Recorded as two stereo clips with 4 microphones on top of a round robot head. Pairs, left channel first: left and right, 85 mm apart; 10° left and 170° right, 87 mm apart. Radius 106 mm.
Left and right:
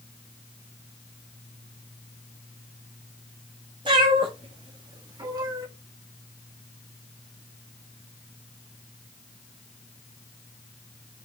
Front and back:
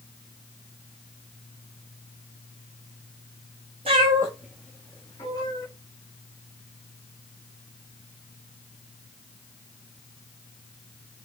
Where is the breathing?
I don't hear breathing.